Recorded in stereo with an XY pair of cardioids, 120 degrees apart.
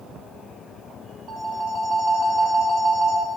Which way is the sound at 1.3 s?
60° right.